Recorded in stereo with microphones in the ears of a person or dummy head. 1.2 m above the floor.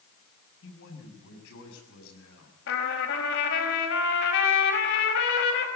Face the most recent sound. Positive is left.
turn(degrees=65)  # may be behind; listen again after turning